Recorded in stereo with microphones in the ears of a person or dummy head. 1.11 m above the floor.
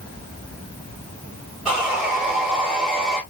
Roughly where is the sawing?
Centre.